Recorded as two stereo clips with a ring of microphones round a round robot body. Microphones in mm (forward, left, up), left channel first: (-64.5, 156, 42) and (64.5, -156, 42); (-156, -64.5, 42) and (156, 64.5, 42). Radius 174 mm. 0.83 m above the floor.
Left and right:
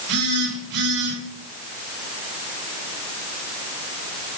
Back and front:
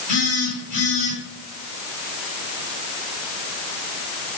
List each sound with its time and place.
0.1 s a phone buzzing: 100° right, 4.5 m